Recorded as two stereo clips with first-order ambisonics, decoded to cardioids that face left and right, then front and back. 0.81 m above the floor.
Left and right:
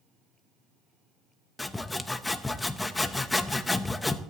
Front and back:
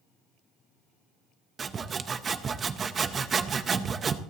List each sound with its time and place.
1.6 s sawing: 160° left, 0.6 m